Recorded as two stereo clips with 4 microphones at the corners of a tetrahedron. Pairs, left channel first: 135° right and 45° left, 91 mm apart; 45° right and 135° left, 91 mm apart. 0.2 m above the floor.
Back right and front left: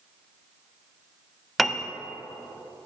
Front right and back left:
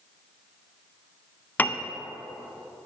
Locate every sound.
1.6 s a piano: 45° right, 0.5 m